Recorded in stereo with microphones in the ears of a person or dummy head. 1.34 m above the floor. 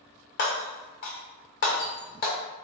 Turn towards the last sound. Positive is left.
turn(degrees=45)  # may be behind; listen again after turning